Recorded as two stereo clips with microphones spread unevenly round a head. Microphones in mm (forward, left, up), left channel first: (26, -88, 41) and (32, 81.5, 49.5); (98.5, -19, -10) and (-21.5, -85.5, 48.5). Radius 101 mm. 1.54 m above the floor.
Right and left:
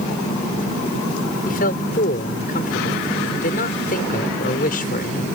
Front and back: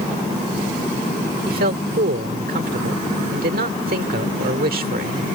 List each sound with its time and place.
1.5 s a man speaking: 140° right